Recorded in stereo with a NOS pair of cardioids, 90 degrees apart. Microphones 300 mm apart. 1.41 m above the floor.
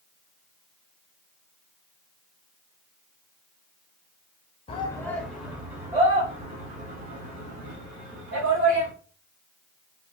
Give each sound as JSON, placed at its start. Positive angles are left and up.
{"t": 4.7, "sound": "a shout", "azimuth_deg": 20, "distance_m": 0.9}